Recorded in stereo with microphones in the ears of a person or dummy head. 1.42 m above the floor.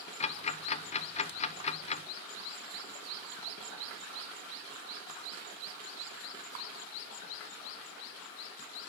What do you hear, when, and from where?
0.2 s ticking: 35° left (ahead or behind), 0.8 m